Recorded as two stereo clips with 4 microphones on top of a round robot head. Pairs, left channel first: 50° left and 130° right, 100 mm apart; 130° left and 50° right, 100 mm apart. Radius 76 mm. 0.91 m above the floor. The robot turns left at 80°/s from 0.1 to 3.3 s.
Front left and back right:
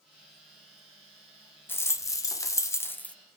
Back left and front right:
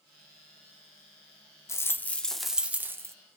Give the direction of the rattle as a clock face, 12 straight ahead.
9 o'clock.